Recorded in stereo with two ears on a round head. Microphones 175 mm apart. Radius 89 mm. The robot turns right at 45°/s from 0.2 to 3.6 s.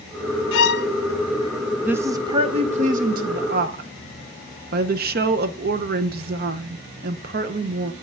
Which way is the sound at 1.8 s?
170° right.